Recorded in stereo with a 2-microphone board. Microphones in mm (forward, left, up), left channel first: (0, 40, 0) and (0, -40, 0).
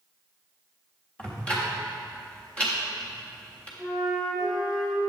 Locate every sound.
1.2 s ticking: 15° left (ahead or behind), 1.3 m
3.8 s a flute: 5° left (ahead or behind), 1.9 m